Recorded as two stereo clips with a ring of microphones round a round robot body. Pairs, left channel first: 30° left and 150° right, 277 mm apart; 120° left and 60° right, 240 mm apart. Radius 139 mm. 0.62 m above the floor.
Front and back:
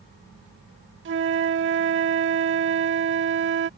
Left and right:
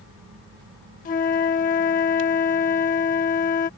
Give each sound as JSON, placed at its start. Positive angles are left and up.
{"t": 1.1, "sound": "a flute", "azimuth_deg": 175}